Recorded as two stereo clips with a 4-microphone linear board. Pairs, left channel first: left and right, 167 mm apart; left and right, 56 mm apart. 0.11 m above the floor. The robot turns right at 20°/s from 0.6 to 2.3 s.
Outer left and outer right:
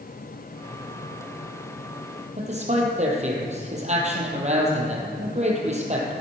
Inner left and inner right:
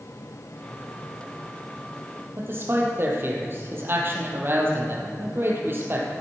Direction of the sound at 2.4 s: 45° right (ahead or behind).